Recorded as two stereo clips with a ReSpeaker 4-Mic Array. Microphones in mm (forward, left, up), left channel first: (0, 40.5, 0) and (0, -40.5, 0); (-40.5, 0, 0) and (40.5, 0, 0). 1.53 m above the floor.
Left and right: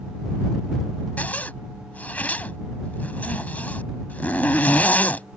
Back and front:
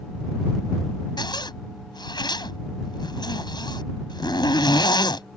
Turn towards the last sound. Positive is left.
turn(degrees=160)